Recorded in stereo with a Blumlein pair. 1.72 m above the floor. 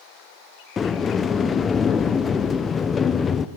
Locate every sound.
0.8 s a sliding door: 20° left, 1.1 m